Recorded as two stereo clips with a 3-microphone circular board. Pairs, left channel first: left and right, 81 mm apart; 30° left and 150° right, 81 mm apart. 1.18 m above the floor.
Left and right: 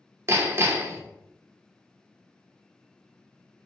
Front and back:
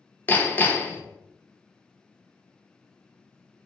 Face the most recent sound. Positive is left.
turn(degrees=-35)